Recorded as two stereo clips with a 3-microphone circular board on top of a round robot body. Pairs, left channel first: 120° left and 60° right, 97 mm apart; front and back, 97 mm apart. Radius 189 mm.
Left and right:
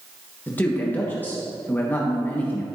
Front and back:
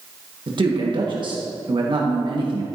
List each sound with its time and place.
0.5 s a man speaking: 175° right, 1.5 m